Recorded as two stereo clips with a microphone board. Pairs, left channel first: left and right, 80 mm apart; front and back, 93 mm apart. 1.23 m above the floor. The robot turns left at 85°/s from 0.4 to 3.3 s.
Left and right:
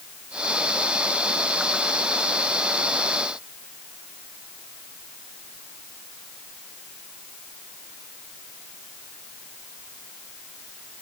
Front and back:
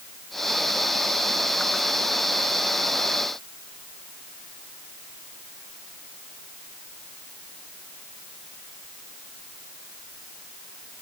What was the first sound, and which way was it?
Only background noise.